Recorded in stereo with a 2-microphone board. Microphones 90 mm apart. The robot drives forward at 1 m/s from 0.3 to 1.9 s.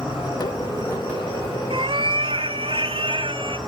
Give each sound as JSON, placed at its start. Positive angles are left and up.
{"t": 0.0, "sound": "an insect", "side_deg": 65, "distance_m": 8.5}
{"t": 1.7, "sound": "a cat meowing", "side_deg": -80, "distance_m": 0.6}